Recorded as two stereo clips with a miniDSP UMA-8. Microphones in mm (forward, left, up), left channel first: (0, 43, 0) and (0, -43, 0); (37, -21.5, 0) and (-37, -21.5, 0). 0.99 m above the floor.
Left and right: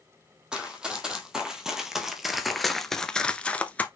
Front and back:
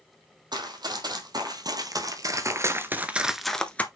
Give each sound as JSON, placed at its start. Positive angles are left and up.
{"t": 0.5, "sound": "running footsteps", "azimuth_deg": -170, "distance_m": 2.5}